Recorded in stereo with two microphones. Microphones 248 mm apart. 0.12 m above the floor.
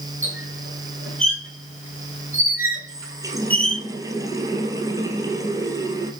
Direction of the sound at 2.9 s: 15° right (ahead or behind).